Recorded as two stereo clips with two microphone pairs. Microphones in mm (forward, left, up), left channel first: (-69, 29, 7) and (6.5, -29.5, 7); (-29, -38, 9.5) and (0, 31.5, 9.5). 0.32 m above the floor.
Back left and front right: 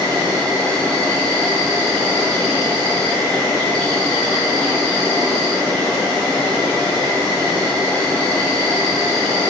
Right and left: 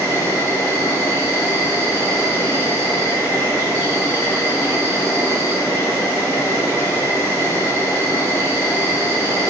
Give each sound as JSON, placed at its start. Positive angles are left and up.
{"t": 0.0, "sound": "an insect", "azimuth_deg": -140, "distance_m": 1.2}